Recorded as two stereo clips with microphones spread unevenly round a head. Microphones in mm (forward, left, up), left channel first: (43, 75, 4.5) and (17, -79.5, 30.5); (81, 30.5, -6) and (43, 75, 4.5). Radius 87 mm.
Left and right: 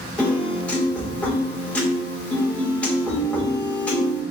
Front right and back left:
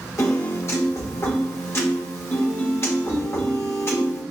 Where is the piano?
5° right, 1.5 m.